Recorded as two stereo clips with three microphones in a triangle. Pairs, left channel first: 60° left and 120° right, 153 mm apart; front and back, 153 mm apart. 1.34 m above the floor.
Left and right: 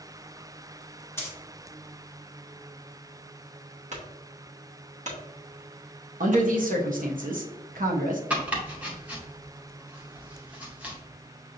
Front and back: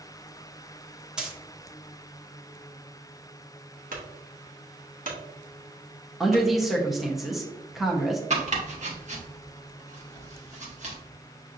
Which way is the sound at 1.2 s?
105° left.